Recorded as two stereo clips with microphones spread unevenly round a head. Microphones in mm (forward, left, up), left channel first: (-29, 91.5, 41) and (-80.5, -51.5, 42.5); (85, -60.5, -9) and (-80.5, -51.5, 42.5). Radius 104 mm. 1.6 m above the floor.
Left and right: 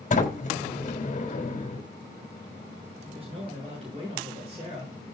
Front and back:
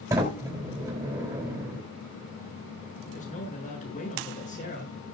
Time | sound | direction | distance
0.1 | a sliding door | 105° left | 3.5 m
3.0 | a man speaking | 45° right | 7 m